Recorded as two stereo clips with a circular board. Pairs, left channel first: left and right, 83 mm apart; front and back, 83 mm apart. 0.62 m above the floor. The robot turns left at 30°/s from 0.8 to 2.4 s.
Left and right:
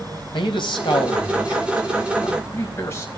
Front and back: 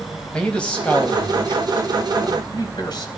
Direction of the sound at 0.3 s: 80° left.